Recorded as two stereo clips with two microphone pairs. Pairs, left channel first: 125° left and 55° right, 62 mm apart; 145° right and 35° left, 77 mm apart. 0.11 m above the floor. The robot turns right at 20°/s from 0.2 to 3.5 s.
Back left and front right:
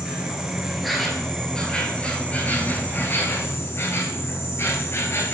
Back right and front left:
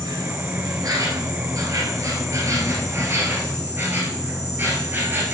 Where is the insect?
20° left, 1.9 m; by 5.3 s 90° left, 1.9 m.